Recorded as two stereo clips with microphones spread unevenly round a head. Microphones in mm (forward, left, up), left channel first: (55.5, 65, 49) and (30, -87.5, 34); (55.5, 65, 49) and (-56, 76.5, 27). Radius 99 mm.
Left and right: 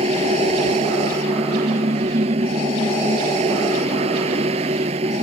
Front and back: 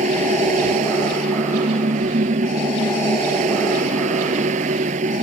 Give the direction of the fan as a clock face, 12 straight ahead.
5 o'clock.